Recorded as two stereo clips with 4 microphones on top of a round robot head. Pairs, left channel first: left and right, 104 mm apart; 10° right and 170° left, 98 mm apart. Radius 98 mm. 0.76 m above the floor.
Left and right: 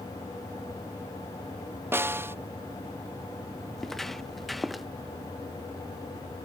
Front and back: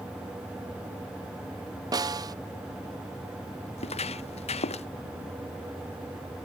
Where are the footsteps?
Straight ahead.